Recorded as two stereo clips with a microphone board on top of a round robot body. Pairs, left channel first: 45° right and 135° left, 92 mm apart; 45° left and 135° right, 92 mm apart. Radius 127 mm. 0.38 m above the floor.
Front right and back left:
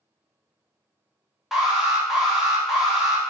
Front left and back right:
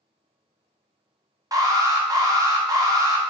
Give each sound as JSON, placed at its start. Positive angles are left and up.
{"t": 1.5, "sound": "an alarm", "azimuth_deg": -140, "distance_m": 0.8}